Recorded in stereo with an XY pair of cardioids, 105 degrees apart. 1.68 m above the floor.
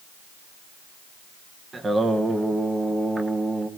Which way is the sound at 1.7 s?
35° right.